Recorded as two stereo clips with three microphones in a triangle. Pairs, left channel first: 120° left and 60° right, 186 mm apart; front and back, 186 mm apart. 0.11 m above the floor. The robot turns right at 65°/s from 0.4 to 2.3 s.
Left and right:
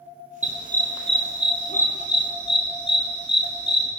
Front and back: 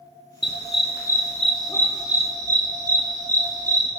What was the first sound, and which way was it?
A dog barking, 10° right.